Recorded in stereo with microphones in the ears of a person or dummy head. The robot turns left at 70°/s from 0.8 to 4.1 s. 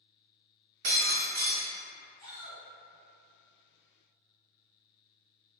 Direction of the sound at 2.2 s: 15° left (ahead or behind).